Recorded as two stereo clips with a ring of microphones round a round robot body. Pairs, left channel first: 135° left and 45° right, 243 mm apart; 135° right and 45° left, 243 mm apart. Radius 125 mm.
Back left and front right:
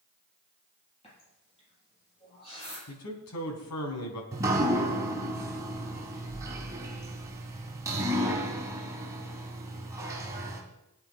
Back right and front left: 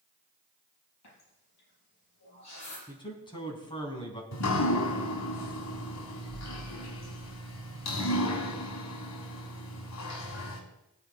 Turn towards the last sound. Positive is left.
turn(degrees=-125)